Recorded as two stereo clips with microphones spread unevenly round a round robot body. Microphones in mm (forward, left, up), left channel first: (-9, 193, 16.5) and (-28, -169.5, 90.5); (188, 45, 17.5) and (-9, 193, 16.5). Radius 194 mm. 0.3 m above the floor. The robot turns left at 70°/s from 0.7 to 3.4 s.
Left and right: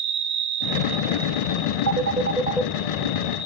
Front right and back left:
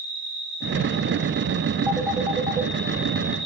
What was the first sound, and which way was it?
An insect, 140° right.